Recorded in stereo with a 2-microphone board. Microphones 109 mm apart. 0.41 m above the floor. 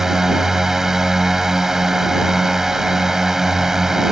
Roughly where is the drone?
Centre.